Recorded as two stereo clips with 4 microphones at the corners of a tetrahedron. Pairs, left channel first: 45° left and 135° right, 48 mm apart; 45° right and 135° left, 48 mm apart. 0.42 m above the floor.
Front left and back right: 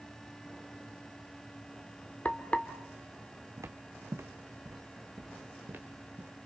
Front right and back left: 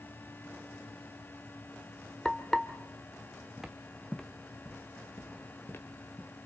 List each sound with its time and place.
2.2 s frying: 20° left, 1.4 m
3.6 s footsteps: 145° right, 1.3 m; by 6.5 s 80° right, 3 m